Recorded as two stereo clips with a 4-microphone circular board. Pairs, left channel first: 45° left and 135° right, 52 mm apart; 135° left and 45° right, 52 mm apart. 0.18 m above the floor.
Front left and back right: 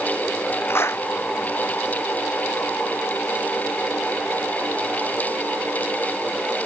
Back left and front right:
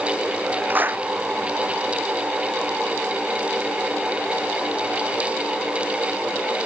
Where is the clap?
10° left.